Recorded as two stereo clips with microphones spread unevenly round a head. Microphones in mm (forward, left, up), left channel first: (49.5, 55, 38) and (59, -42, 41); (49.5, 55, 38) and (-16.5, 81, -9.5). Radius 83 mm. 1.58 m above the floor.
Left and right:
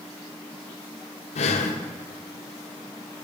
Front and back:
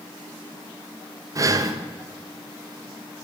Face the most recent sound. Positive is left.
turn(degrees=115)